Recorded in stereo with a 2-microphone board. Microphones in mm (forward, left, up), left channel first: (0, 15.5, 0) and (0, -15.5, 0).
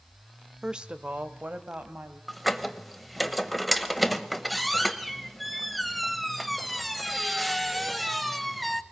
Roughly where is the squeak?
Centre.